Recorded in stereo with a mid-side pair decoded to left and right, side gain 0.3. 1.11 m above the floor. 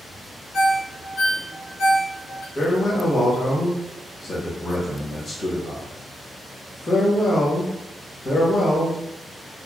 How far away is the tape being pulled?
I don't hear tape being pulled.